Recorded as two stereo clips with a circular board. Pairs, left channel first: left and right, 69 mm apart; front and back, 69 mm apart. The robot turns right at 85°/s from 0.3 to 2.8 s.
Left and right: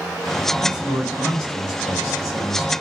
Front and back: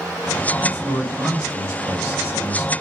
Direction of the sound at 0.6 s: 100° left.